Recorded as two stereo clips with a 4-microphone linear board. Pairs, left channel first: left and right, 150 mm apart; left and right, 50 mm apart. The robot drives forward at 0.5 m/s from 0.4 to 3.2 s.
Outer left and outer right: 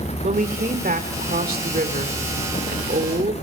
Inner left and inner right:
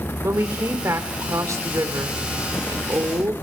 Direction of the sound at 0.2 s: 65° right (ahead or behind).